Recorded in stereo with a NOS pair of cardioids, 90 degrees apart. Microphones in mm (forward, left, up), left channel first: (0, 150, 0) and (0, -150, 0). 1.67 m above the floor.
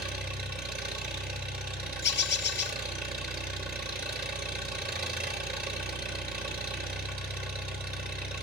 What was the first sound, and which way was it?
An engine running, 30° right.